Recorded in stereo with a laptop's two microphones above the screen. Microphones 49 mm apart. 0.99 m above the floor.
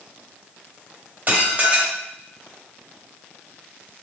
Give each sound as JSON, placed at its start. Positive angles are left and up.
{"t": 1.3, "sound": "dishes clattering", "side_deg": -40, "distance_m": 1.3}